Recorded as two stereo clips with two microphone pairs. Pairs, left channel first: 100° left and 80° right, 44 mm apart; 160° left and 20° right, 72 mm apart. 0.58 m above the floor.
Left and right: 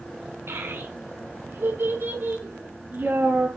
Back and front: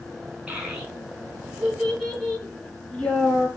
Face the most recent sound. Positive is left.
turn(degrees=-125)